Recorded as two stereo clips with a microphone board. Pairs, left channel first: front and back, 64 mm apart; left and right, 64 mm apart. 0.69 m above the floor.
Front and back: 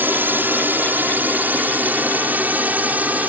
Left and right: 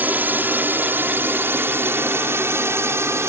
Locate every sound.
0.0 s a drone: 135° right; by 3.3 s 120° right